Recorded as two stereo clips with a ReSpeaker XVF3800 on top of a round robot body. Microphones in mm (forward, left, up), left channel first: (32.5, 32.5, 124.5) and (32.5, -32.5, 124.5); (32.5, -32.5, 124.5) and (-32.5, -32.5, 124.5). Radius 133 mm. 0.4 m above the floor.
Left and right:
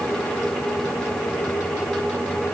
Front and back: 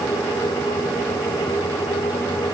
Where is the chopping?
No chopping in this recording.